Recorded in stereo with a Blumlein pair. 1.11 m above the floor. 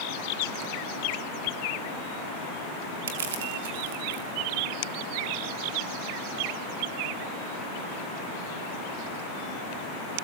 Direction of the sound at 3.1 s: 60° right.